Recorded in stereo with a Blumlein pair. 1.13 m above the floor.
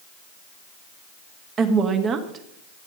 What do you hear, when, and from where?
1.6 s a woman speaking: 25° right, 1.6 m